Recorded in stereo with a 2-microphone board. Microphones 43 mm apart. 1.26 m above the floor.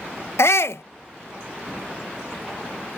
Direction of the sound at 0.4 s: 80° left.